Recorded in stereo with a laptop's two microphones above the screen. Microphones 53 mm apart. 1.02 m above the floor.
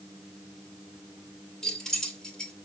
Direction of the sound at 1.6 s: 10° left (ahead or behind).